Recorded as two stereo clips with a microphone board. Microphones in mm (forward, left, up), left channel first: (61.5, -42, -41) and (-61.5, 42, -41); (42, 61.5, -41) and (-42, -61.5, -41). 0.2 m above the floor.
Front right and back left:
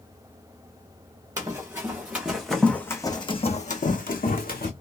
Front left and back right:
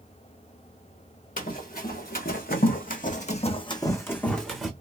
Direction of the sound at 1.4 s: 75° left.